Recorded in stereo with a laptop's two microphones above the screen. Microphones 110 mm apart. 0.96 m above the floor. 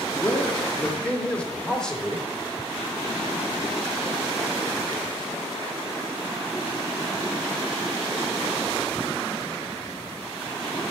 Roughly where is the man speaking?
Left.